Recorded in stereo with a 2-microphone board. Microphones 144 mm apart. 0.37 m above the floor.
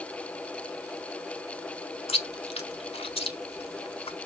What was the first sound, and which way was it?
Chewing, 40° left (ahead or behind).